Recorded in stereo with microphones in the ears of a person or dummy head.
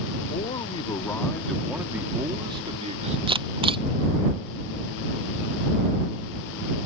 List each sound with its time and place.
0.3 s a man speaking: 35° left (ahead or behind); by 3.2 s 35° right (ahead or behind)
3.3 s a camera shutter: 25° right (ahead or behind)